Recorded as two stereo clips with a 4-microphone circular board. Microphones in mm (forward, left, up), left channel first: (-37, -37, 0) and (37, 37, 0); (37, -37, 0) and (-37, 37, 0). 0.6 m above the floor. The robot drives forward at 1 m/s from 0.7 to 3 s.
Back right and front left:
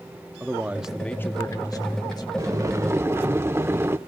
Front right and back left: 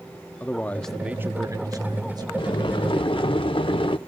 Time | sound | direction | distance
0.4 | a man speaking | straight ahead | 0.6 m
2.4 | boiling | 10° right | 1.3 m